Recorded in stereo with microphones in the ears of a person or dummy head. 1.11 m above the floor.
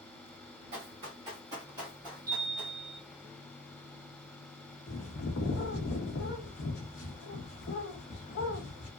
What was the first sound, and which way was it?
Running footsteps, 35° right (ahead or behind).